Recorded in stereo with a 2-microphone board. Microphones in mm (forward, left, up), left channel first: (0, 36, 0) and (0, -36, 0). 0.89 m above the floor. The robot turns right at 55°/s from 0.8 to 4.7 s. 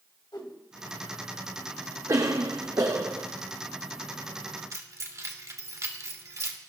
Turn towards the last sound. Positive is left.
turn(degrees=-45)  # may be behind; listen again after turning